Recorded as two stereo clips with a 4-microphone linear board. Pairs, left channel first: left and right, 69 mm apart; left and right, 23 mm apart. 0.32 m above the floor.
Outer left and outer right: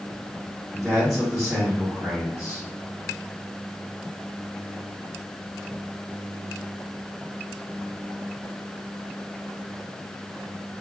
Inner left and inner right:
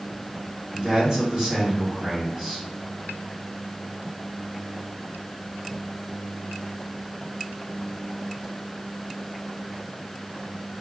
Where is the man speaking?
50° right (ahead or behind), 2.0 m.